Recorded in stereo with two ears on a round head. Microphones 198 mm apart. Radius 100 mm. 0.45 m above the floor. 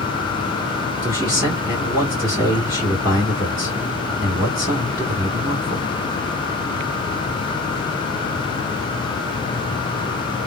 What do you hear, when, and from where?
1.0 s a man speaking: 15° right (ahead or behind), 1.4 m